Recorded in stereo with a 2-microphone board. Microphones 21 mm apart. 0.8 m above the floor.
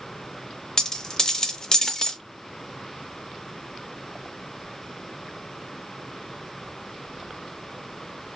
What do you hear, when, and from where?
0.8 s a dropped coin: 25° left (ahead or behind), 0.6 m